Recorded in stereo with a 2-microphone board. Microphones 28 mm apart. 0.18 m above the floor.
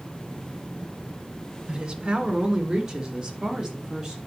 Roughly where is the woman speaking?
Right.